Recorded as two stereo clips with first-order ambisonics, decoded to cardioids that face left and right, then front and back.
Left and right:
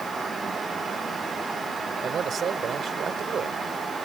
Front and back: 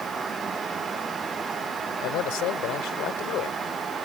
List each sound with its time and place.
2.0 s a man speaking: 25° right